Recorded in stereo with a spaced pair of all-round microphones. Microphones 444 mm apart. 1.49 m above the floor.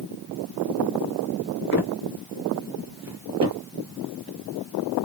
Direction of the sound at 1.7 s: 25° left (ahead or behind).